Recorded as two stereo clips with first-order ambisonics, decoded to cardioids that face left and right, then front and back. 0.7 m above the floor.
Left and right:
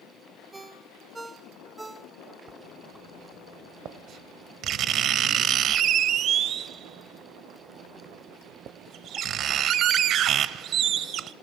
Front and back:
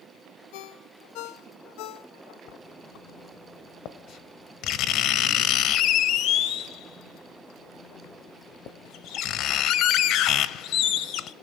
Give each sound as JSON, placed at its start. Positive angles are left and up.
{"t": 0.5, "sound": "a ringtone", "azimuth_deg": -10, "distance_m": 1.8}
{"t": 2.5, "sound": "writing", "azimuth_deg": -40, "distance_m": 1.1}